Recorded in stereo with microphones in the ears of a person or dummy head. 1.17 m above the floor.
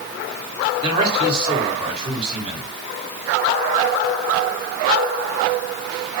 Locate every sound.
0.8 s a man speaking: 30° right (ahead or behind), 3 m